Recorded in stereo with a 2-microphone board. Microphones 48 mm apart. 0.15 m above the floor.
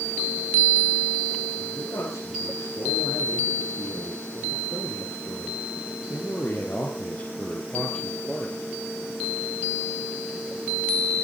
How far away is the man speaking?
About 7.5 m.